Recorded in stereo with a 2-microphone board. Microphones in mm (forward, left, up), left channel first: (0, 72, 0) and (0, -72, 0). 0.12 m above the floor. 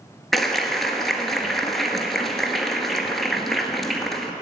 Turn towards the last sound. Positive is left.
turn(degrees=0)  # may be behind; listen again after turning